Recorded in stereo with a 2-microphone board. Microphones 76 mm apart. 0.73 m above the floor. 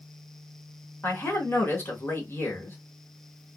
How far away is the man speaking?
About 1.0 m.